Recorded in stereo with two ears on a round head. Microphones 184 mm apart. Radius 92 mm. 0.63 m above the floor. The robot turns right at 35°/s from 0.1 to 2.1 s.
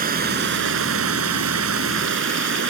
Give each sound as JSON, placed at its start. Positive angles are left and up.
{"t": 0.0, "sound": "running water", "azimuth_deg": -135}